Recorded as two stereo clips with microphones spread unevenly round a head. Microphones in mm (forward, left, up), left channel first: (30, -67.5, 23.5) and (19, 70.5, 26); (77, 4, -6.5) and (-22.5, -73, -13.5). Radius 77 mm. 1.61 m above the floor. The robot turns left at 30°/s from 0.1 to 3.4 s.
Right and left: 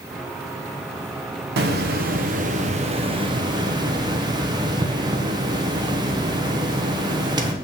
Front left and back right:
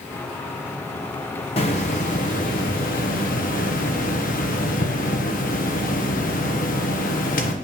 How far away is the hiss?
About 1.0 m.